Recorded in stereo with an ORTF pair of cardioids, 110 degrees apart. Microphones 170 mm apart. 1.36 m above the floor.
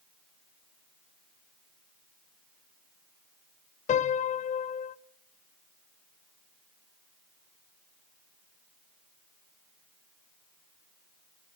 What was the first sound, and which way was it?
A piano, 45° left.